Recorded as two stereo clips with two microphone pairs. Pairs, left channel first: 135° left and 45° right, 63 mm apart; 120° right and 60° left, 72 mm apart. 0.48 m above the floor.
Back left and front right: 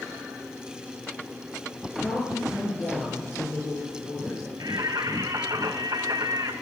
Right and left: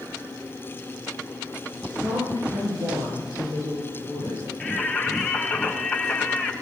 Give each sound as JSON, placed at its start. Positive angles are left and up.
{"t": 2.0, "sound": "a woman speaking", "azimuth_deg": 70, "distance_m": 10.0}
{"t": 4.6, "sound": "singing", "azimuth_deg": -35, "distance_m": 3.5}